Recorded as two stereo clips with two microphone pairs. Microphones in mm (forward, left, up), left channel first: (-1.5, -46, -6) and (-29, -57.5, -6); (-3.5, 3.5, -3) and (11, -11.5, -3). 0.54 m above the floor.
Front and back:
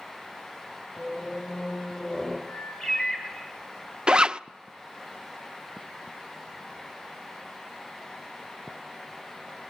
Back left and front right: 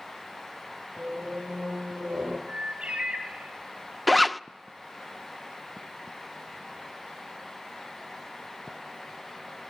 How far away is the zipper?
About 0.5 m.